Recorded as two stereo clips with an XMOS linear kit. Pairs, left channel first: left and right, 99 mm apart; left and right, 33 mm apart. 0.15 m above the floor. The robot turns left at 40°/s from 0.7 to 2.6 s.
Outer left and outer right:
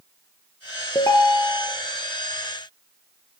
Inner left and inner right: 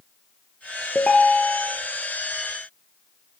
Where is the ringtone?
40° left (ahead or behind), 1.1 m; by 1.7 s 10° left (ahead or behind), 1.1 m.